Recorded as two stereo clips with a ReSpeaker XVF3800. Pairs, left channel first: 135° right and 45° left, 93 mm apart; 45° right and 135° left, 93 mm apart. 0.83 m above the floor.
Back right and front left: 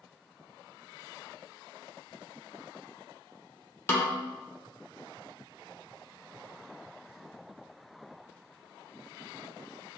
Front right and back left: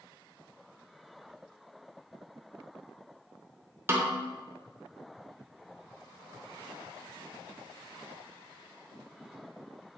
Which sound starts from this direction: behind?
A snare drum, at 3.9 s.